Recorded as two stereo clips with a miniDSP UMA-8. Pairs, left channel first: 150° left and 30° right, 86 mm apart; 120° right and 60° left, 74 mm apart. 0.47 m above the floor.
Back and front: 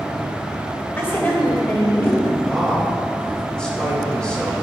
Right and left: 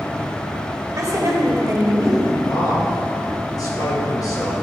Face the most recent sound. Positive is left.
turn(degrees=-130)